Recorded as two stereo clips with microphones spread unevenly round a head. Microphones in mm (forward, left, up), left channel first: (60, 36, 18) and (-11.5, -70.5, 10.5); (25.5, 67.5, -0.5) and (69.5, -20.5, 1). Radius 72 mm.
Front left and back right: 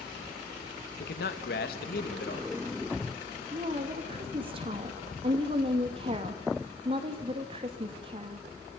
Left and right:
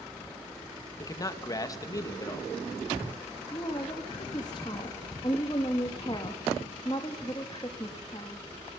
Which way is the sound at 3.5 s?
Straight behind.